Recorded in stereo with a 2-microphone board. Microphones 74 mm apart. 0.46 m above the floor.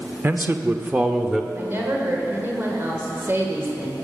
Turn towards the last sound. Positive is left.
turn(degrees=-30)  # may be behind; listen again after turning